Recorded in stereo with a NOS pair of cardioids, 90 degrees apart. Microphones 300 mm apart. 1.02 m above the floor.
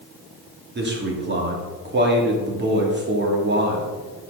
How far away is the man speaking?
About 2.5 m.